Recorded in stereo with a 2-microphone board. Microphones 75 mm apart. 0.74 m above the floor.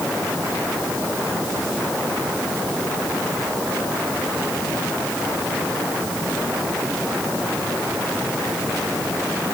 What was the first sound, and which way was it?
Only background noise.